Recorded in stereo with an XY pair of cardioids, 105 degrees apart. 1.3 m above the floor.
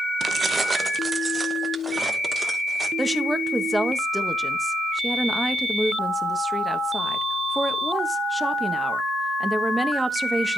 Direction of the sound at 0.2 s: 40° right.